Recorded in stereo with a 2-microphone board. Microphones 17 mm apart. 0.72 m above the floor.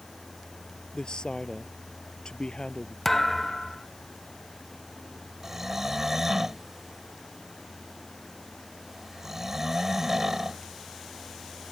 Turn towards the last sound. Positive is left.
turn(degrees=-20)  # may be behind; listen again after turning